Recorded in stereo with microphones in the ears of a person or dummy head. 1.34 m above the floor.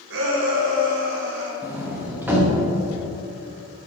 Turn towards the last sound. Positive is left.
turn(degrees=-5)  # may be behind; listen again after turning